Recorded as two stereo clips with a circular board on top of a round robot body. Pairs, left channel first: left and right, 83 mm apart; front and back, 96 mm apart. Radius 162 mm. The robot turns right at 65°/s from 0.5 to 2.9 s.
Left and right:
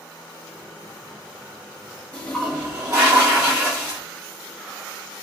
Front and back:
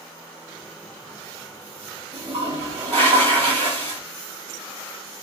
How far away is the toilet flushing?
About 2.0 m.